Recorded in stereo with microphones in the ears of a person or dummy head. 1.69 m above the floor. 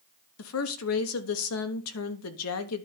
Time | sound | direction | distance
0.4 | a woman speaking | 80° left | 1.2 m